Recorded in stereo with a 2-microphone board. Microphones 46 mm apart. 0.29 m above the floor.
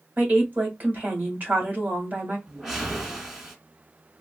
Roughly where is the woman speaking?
Right.